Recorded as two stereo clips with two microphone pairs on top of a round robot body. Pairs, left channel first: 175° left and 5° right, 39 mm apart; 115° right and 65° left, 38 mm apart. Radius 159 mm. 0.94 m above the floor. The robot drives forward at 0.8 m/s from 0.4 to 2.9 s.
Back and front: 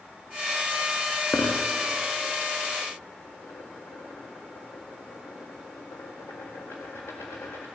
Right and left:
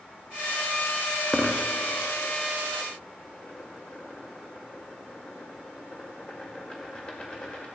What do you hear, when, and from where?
1.3 s a dropped coin: 155° left, 0.5 m; by 7.7 s 175° left, 1.7 m